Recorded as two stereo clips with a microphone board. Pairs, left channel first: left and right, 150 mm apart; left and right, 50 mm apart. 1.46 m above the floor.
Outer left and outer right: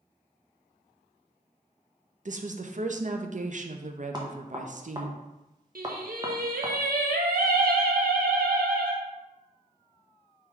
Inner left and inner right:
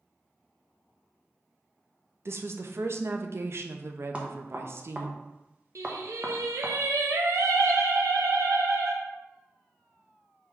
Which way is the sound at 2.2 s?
55° right (ahead or behind).